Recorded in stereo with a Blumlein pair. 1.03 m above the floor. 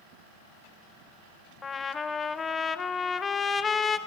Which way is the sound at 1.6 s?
20° left.